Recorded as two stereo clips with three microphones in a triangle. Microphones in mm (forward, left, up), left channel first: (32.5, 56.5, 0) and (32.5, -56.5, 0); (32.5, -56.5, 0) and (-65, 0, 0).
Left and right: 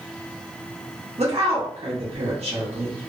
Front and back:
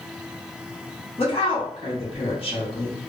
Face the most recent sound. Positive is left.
turn(degrees=-65)